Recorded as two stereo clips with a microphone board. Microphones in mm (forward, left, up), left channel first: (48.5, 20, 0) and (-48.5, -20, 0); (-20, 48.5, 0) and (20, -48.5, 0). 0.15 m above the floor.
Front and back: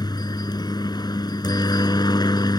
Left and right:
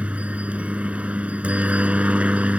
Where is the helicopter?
5° left.